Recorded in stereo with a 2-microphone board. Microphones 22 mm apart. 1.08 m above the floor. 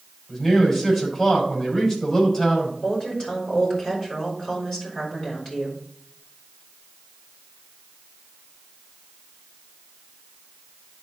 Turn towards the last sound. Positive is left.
turn(degrees=30)  # may be behind; listen again after turning